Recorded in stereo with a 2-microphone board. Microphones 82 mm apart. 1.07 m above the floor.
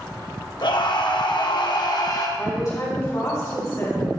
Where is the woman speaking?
45° left (ahead or behind), 3 m.